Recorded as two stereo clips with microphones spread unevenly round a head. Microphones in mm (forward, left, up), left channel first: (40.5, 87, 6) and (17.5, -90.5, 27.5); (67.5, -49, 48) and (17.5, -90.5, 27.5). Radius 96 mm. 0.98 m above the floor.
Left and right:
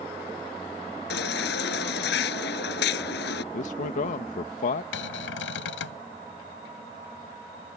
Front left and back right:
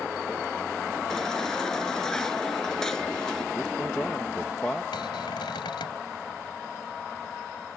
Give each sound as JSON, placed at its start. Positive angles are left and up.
{"t": 1.1, "sound": "a baby crying", "azimuth_deg": 125}
{"t": 3.5, "sound": "a man speaking", "azimuth_deg": 125}
{"t": 4.9, "sound": "a cupboard door", "azimuth_deg": 65}